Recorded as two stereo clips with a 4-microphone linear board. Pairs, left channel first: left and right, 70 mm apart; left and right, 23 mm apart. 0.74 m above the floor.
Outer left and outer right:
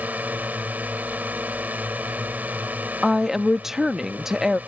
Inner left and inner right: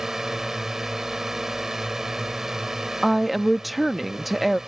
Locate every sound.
0.0 s a drone: 20° right (ahead or behind)
3.0 s a woman speaking: 5° right (ahead or behind)